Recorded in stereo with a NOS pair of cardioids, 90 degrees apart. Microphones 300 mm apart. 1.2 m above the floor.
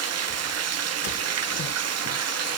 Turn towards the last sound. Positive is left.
turn(degrees=-55)